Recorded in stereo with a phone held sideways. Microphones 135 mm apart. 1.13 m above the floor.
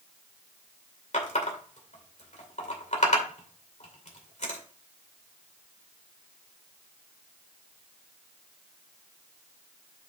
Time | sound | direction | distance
1.1 | a running tap | 60° left (ahead or behind) | 2.5 m